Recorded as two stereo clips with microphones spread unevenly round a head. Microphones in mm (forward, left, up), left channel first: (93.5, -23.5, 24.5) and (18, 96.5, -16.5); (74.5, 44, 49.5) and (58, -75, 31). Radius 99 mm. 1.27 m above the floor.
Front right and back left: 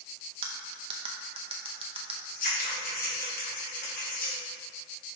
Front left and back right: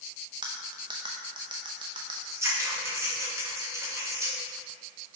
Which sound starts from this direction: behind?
Cutlery clinking, at 0.4 s.